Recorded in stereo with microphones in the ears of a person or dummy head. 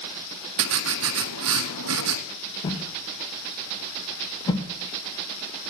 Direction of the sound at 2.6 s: 20° left (ahead or behind).